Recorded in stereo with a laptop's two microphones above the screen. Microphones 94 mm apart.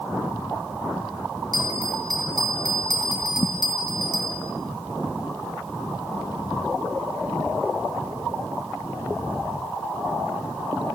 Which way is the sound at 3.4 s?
65° left (ahead or behind).